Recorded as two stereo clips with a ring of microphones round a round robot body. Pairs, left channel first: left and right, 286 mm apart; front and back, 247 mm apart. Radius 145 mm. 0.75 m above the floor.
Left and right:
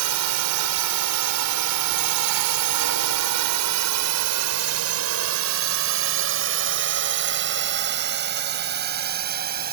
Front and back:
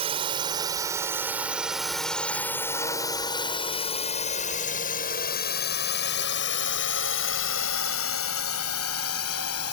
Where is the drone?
110° right; by 9.7 s 35° right.